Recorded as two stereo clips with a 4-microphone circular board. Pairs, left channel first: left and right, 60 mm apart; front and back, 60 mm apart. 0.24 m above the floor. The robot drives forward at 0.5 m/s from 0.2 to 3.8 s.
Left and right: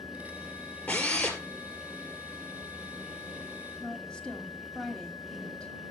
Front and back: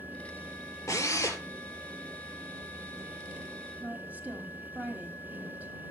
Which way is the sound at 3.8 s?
155° left.